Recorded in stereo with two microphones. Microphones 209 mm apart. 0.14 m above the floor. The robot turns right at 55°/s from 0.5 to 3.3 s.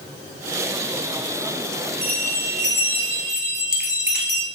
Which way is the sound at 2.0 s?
135° right.